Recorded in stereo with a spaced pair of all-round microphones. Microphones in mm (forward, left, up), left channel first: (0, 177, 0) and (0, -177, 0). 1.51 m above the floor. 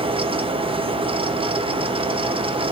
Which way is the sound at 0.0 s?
15° right (ahead or behind).